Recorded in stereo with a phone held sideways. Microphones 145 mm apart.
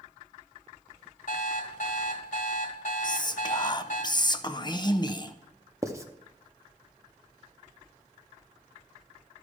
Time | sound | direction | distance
1.3 | an alarm clock | 75° left (ahead or behind) | 1.8 m
3.0 | whispering | 30° left (ahead or behind) | 0.6 m
5.8 | writing | 20° right (ahead or behind) | 0.7 m